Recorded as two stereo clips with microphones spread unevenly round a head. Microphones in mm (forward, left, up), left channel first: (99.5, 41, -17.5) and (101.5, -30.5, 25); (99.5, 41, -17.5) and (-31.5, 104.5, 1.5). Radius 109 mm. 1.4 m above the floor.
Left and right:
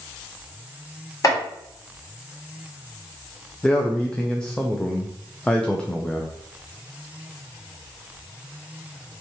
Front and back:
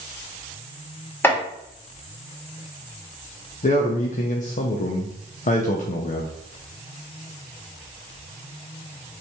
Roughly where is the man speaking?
Ahead.